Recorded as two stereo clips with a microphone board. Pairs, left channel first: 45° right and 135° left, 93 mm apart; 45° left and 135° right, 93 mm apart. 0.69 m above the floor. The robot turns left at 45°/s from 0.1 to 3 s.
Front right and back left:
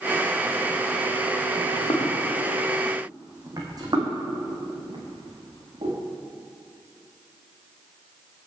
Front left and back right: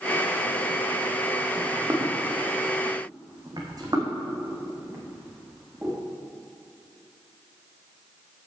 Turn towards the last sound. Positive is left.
turn(degrees=155)